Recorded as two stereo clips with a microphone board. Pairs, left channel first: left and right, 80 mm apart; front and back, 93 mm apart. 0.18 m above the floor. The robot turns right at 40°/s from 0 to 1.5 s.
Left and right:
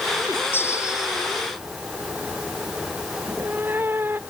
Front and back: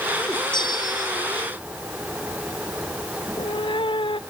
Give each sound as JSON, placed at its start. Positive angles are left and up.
{"t": 0.5, "sound": "a bell", "azimuth_deg": 30}
{"t": 3.2, "sound": "a cat meowing", "azimuth_deg": -25}